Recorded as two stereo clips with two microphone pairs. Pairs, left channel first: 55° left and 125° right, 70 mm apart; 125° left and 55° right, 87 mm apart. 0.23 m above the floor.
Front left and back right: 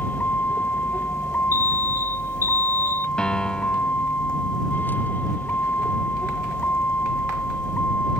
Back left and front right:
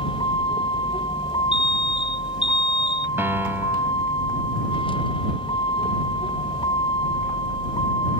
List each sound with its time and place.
0.0 s a vehicle: 120° left
1.5 s an alarm: 125° right
3.2 s a piano: 20° right